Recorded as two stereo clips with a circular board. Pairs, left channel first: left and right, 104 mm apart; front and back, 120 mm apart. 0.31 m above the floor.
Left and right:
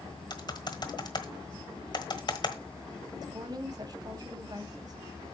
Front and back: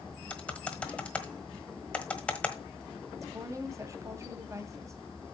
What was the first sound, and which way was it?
Typing on a keyboard, 75° left.